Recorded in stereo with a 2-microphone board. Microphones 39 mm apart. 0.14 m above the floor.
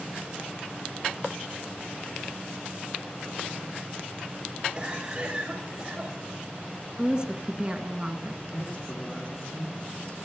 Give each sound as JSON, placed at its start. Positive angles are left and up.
{"t": 4.8, "sound": "a cough", "side_deg": -25, "distance_m": 7.0}
{"t": 7.0, "sound": "a woman speaking", "side_deg": -30, "distance_m": 1.6}
{"t": 8.5, "sound": "a man speaking", "side_deg": 40, "distance_m": 5.0}